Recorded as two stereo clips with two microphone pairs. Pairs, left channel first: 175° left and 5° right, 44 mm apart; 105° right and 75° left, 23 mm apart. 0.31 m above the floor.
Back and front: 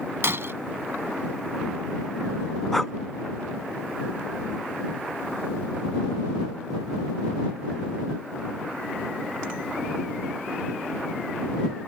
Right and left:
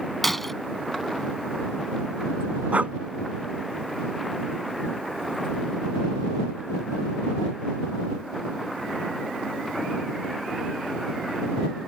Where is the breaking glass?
25° right.